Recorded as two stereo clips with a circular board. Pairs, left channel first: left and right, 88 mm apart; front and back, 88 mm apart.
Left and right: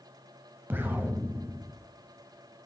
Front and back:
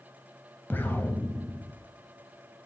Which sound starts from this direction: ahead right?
An explosion, at 0.7 s.